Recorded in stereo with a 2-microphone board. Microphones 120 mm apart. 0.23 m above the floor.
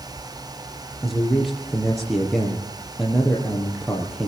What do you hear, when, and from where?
1.0 s a man speaking: centre (ahead or behind), 5.5 m